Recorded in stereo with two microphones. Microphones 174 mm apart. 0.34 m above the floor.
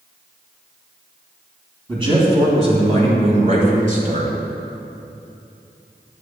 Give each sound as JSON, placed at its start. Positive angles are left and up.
{"t": 1.9, "sound": "a man speaking", "side_deg": -30, "distance_m": 2.0}